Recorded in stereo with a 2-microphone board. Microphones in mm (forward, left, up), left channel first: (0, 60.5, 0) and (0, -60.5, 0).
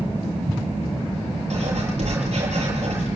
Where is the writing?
70° right (ahead or behind), 8 m.